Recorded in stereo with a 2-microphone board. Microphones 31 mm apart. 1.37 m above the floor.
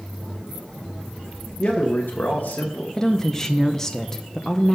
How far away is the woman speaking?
About 0.5 m.